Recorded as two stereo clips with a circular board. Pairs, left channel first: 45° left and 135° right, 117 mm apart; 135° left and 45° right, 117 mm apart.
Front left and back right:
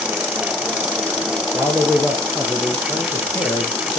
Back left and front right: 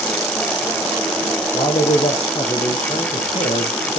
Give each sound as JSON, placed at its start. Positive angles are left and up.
{"t": 1.5, "sound": "a man speaking", "azimuth_deg": 140, "distance_m": 3.5}